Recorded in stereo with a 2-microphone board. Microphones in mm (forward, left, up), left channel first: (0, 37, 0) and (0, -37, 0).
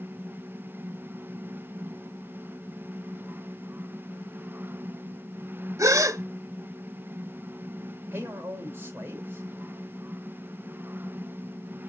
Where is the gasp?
45° right (ahead or behind), 0.6 m.